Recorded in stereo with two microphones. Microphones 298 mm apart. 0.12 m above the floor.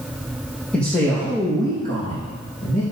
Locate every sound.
0.7 s a man speaking: 5° left (ahead or behind), 4.5 m; by 2.8 s 30° left (ahead or behind), 5 m